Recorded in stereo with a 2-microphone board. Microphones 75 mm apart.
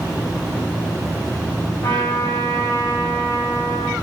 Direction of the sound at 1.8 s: 75° left (ahead or behind).